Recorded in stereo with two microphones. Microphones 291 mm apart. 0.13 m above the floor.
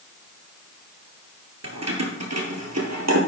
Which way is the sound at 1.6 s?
55° right (ahead or behind).